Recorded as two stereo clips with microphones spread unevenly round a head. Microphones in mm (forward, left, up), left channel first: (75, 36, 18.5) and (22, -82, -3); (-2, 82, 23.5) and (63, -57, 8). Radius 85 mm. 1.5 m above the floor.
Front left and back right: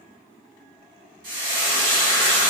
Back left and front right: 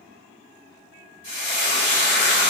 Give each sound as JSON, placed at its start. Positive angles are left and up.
{"t": 1.2, "sound": "frying", "azimuth_deg": -145, "distance_m": 1.2}